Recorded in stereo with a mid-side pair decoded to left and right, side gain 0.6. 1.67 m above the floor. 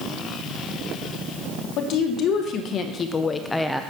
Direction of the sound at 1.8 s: 60° left.